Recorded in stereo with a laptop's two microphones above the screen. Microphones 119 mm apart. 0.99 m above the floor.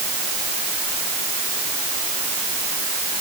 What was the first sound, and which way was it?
Only background noise.